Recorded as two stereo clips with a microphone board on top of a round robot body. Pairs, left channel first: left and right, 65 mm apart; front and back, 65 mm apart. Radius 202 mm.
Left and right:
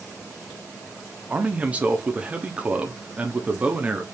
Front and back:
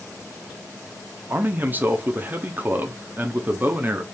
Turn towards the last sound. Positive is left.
turn(degrees=-145)